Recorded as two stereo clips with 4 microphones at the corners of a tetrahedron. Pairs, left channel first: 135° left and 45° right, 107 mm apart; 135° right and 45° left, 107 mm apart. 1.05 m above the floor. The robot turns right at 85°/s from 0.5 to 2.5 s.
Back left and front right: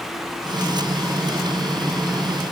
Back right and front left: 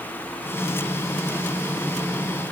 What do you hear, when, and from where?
Only background noise.